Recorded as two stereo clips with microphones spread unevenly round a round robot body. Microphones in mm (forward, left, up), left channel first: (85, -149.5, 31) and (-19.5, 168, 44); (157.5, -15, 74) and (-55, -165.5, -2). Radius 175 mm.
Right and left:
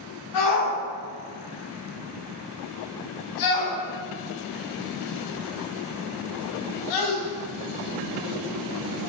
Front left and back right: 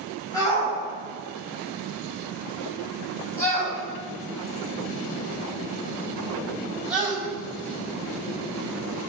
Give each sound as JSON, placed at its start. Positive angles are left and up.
{"t": 0.3, "sound": "a shout", "azimuth_deg": -40, "distance_m": 7.5}